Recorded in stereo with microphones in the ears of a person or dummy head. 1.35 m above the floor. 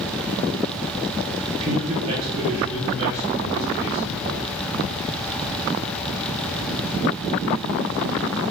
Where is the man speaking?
30° right (ahead or behind), 0.5 m; by 4.4 s 50° right (ahead or behind), 2.5 m.